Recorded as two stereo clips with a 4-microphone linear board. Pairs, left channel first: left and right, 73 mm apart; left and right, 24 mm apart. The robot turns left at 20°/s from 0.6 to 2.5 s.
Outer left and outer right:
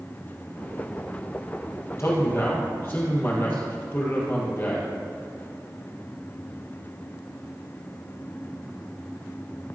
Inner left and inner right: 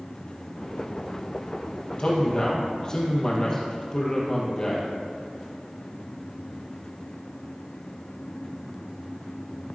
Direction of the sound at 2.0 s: 40° left (ahead or behind).